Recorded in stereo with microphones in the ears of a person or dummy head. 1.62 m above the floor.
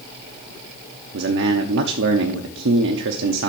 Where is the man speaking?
70° right (ahead or behind), 0.8 m.